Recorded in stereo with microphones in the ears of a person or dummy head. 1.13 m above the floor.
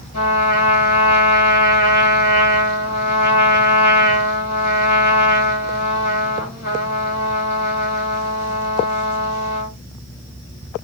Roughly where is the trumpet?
Left.